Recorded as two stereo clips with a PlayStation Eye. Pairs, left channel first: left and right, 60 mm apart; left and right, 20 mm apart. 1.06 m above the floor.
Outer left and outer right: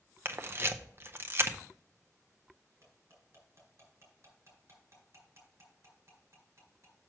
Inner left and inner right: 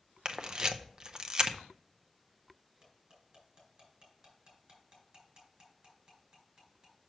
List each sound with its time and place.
0.2 s a camera shutter: 40° right (ahead or behind), 0.7 m
2.8 s cutlery clinking: 50° right (ahead or behind), 4 m